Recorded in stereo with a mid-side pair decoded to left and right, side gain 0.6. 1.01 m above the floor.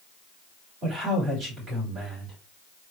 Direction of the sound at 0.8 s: 45° right.